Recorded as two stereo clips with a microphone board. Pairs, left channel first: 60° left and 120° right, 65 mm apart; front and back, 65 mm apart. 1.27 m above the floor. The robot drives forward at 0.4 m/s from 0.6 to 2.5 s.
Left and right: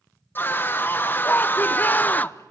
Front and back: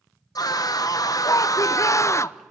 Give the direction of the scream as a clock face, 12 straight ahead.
12 o'clock.